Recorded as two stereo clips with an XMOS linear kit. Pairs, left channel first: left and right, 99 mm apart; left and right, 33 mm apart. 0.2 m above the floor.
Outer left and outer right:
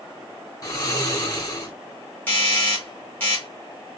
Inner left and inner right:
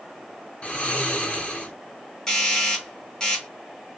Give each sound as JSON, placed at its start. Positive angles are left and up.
{"t": 0.6, "sound": "snoring", "side_deg": 35, "distance_m": 1.4}
{"t": 2.3, "sound": "a doorbell", "side_deg": 15, "distance_m": 1.7}